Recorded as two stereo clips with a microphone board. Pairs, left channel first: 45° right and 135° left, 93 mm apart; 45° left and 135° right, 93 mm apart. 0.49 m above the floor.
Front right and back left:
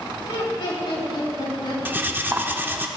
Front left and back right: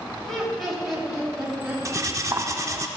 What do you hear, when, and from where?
0.2 s laughter: 40° right, 3 m; by 1.8 s 65° right, 4 m
1.9 s cutlery clinking: 170° right, 0.5 m